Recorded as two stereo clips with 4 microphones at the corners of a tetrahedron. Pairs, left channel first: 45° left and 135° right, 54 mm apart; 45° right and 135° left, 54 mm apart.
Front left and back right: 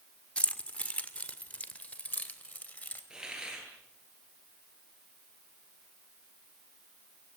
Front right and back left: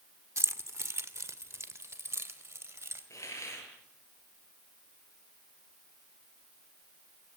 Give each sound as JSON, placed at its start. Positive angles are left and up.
{"t": 0.4, "sound": "keys jangling", "azimuth_deg": 110, "distance_m": 1.5}
{"t": 3.1, "sound": "a hiss", "azimuth_deg": -60, "distance_m": 8.0}